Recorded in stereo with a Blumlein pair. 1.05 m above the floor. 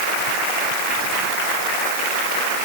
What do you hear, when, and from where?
Only background noise.